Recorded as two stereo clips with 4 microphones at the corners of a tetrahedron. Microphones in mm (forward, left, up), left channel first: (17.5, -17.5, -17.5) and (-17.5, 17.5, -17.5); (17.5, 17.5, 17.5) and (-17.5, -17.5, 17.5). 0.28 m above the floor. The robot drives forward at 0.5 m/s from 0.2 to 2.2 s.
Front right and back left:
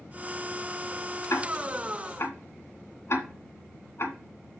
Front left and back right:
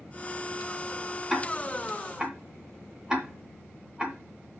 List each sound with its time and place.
1.3 s ticking: 50° right, 2 m; by 4.2 s 65° right, 1.9 m